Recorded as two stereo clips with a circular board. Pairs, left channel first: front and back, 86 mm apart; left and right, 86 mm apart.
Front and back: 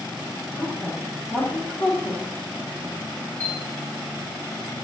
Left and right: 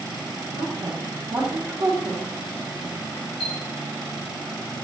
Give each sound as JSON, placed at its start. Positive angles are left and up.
{"t": 0.5, "sound": "a woman speaking", "azimuth_deg": -75, "distance_m": 1.8}
{"t": 3.4, "sound": "a chime", "azimuth_deg": 70, "distance_m": 1.5}